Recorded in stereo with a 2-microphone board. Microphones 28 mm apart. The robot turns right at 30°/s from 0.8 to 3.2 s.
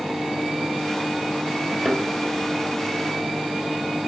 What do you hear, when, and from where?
1.8 s a thud: 10° right (ahead or behind), 1.5 m; by 2.0 s centre (ahead or behind), 1.5 m